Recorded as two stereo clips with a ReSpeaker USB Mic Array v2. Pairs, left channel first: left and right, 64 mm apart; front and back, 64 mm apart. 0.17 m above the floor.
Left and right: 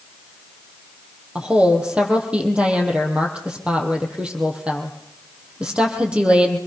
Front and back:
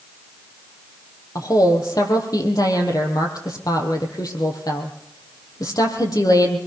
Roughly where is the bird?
I don't hear a bird.